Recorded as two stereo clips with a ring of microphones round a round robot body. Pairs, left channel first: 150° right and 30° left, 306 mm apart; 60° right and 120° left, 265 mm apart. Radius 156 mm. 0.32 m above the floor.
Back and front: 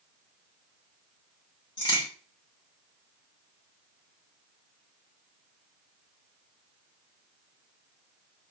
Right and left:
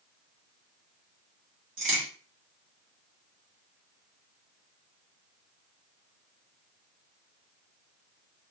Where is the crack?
135° left, 1.9 m.